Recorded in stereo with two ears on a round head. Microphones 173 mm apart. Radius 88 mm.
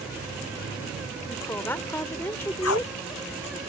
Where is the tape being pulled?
80° left.